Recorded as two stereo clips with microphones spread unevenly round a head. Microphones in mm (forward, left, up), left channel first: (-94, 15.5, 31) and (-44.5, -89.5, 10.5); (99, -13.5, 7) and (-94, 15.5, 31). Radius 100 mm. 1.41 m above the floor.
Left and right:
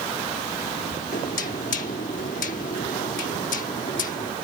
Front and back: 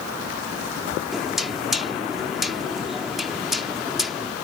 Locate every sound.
1.1 s knocking: 85° left